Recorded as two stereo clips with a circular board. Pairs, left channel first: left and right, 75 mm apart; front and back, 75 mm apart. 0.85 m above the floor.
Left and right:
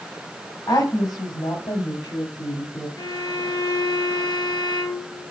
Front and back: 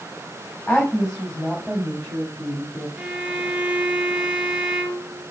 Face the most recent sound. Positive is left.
turn(degrees=105)